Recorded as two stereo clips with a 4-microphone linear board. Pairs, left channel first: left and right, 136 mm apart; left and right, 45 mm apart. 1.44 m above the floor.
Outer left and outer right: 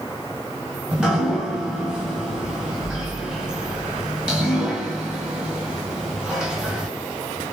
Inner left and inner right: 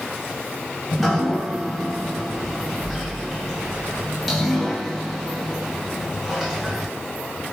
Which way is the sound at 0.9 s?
5° right (ahead or behind).